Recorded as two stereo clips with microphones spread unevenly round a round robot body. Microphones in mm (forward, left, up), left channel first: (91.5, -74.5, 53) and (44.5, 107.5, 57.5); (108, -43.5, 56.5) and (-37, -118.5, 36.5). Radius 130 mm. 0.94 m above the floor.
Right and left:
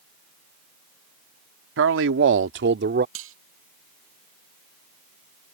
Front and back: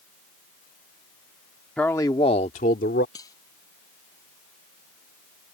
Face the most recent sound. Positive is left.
turn(degrees=105)